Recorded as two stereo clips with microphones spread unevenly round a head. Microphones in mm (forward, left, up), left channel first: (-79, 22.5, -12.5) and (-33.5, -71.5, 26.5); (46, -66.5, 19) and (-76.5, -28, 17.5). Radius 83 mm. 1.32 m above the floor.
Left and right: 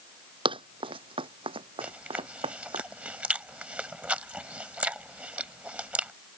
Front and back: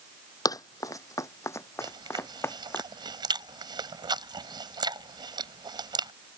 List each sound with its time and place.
0.5 s running footsteps: 75° right; by 2.8 s 90° right
1.8 s chewing: 140° right